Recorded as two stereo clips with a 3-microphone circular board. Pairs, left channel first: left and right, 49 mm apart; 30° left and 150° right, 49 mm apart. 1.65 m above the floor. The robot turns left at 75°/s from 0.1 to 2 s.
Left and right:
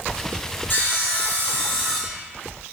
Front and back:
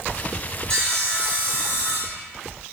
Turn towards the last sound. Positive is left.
turn(degrees=0)